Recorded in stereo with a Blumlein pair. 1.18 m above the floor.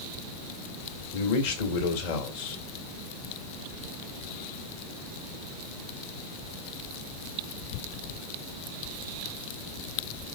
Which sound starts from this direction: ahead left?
A man speaking, at 1.1 s.